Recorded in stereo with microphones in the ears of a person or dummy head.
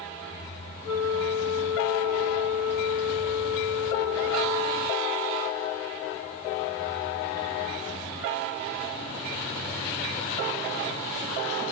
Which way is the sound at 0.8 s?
25° left (ahead or behind).